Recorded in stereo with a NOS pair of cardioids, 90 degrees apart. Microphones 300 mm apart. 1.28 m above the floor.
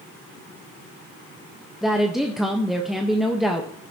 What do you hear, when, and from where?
1.8 s a woman speaking: straight ahead, 1.3 m